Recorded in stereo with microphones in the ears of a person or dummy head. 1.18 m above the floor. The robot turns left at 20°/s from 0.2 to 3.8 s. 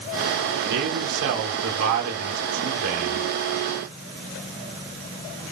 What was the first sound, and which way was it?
A man speaking, 65° right.